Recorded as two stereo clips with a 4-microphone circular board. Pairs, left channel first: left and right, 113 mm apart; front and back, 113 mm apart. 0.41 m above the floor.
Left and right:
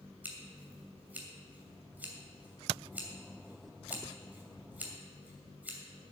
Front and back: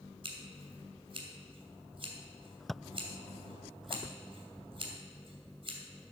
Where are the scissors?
160° right, 2.5 m.